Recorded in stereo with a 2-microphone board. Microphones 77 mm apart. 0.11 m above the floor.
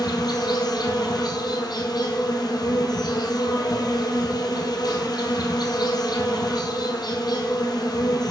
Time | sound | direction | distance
0.0 | an insect | 60° left (ahead or behind) | 0.9 m